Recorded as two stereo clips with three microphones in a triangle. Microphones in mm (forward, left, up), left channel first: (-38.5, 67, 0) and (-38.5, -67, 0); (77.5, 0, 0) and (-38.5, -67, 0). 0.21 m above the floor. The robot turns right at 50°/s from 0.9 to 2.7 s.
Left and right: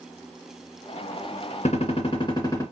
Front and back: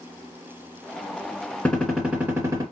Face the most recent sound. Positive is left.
turn(degrees=160)